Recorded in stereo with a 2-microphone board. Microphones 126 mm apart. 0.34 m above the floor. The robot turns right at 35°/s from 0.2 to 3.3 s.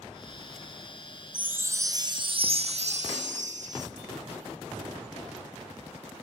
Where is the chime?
170° right, 1.2 m; by 3.9 s 100° right, 1.2 m.